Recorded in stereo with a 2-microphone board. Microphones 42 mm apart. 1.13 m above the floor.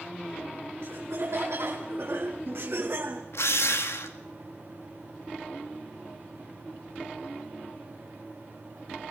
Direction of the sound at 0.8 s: 70° right (ahead or behind).